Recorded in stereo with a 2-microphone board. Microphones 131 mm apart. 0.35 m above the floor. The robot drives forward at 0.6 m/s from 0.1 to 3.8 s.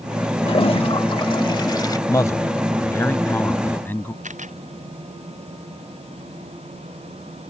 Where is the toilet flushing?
45° left (ahead or behind); by 2.0 s 30° left (ahead or behind).